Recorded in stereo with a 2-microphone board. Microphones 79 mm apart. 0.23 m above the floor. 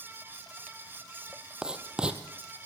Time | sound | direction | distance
1.6 | writing | 10° right (ahead or behind) | 2 m